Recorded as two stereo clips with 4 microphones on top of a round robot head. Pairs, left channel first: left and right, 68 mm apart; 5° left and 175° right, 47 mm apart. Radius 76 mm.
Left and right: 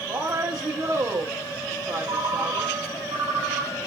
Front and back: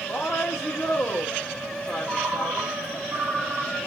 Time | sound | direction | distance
0.1 | a woman speaking | 60° right | 1.1 m
2.1 | a ringtone | 120° right | 1.9 m